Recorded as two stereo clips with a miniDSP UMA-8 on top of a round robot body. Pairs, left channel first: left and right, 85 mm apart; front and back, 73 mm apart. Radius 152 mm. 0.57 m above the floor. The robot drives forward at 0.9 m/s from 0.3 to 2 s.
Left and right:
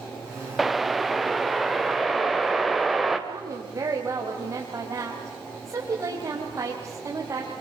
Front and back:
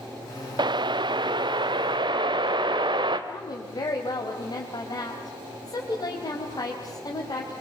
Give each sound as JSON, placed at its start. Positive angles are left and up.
{"t": 0.6, "sound": "a whoosh", "azimuth_deg": 180, "distance_m": 0.7}
{"t": 3.3, "sound": "a woman speaking", "azimuth_deg": -35, "distance_m": 3.5}